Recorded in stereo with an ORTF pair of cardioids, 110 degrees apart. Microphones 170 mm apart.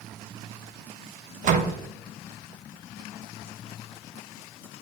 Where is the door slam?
50° right, 1.0 m.